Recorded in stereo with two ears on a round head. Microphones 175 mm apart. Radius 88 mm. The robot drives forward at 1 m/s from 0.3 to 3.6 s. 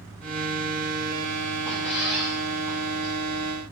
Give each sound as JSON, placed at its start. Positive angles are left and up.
{"t": 1.6, "sound": "a squeak", "side_deg": -5, "distance_m": 5.5}